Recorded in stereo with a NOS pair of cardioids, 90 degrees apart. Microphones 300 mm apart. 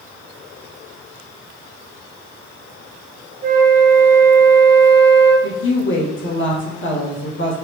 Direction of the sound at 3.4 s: 30° right.